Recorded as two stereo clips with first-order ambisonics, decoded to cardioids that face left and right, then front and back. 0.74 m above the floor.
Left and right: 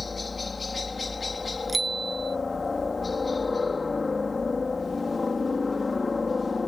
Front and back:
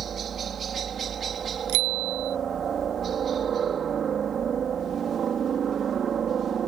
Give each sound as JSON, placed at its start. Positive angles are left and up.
{"t": 0.0, "sound": "a helicopter", "azimuth_deg": 155}
{"t": 1.7, "sound": "a bicycle bell", "azimuth_deg": -170}